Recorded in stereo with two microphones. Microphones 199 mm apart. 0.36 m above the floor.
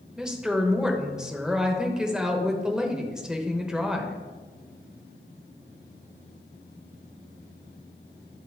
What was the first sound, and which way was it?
A woman speaking, 5° right (ahead or behind).